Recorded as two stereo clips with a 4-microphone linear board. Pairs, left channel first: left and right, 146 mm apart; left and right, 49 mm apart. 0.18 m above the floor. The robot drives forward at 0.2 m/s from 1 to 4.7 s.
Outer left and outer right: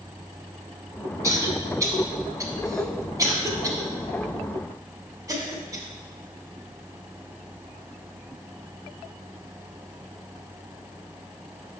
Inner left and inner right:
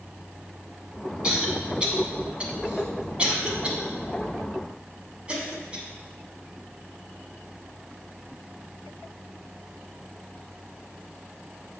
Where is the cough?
20° right (ahead or behind), 1.5 m; by 5.8 s 25° right (ahead or behind), 1.3 m.